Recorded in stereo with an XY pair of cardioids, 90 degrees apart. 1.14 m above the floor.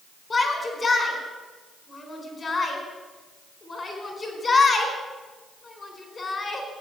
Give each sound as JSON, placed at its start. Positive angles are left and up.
{"t": 0.3, "sound": "a shout", "azimuth_deg": 35, "distance_m": 4.5}